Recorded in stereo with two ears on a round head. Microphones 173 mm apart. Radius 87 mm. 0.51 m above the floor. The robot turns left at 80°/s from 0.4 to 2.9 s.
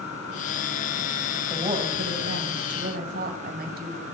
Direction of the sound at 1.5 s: 15° right.